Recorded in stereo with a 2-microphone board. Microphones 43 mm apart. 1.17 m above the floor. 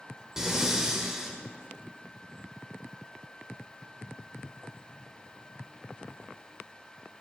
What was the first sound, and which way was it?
Breathing, 15° right (ahead or behind).